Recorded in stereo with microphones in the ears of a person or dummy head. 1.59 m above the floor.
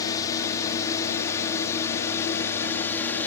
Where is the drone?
20° left (ahead or behind); by 3.3 s 10° left (ahead or behind).